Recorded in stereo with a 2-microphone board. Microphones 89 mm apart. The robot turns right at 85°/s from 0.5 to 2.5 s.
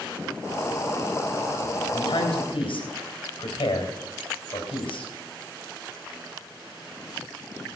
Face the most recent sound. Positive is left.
turn(degrees=80)